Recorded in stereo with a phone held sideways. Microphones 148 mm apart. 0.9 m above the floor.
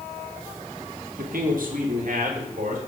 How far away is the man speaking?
About 1.3 m.